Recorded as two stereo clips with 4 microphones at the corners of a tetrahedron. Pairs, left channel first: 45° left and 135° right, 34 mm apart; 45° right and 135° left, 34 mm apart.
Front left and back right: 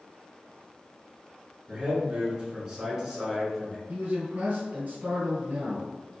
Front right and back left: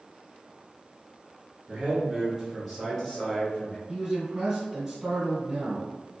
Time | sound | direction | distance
1.7 | a man speaking | straight behind | 1.4 m
3.9 | a man speaking | 155° right | 1.8 m